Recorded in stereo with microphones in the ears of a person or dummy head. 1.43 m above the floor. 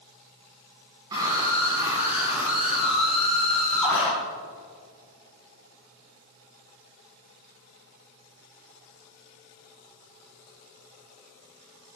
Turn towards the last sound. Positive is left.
turn(degrees=10)  # may be behind; listen again after turning